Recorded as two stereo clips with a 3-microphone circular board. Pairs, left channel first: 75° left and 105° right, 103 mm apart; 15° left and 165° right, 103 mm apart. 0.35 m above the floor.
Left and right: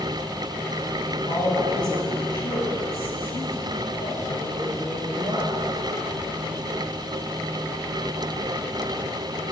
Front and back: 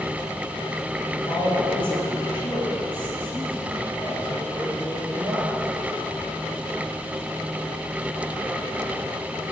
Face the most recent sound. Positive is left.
turn(degrees=65)